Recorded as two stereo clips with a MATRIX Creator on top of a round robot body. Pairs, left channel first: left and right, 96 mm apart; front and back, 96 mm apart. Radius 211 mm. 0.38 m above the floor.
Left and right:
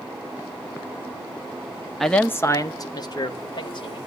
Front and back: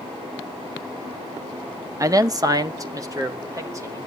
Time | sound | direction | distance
2.0 | a man speaking | straight behind | 0.8 m